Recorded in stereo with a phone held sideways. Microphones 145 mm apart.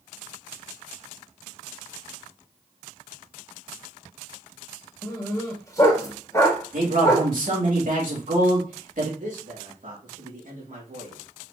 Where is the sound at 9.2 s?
65° right (ahead or behind), 2.5 m.